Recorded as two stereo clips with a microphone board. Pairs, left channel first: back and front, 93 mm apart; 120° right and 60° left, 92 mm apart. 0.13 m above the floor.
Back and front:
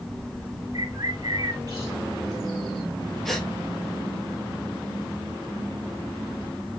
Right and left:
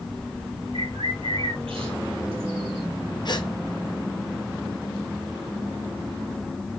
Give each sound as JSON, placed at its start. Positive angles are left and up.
{"t": 0.7, "sound": "a bird", "azimuth_deg": 50, "distance_m": 1.7}
{"t": 3.2, "sound": "a gasp", "azimuth_deg": -95, "distance_m": 2.5}